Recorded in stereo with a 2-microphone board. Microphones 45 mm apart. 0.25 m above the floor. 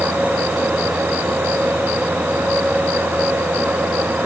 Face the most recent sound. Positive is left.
No sound to turn to.